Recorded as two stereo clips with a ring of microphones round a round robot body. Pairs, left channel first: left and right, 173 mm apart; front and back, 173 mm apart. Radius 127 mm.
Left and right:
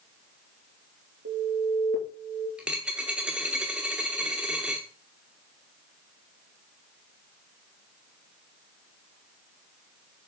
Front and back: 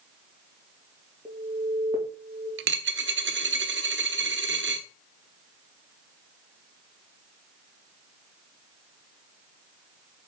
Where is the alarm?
105° right, 3.5 m.